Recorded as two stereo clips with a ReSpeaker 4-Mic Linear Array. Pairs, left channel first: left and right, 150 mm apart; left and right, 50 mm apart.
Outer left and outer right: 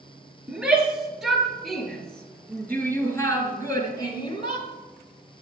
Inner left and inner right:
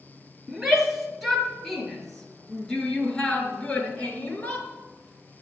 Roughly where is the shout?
Centre.